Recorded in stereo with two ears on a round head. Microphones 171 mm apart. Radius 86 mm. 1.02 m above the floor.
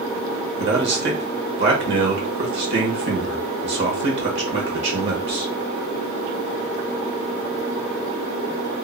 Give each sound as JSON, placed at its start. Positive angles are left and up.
{"t": 0.6, "sound": "a man speaking", "side_deg": -60, "distance_m": 1.2}